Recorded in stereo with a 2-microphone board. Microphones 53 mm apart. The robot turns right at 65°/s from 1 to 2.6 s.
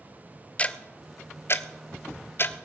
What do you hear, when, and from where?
0.6 s ticking: 25° left (ahead or behind), 0.5 m; by 2.7 s 35° left (ahead or behind), 0.5 m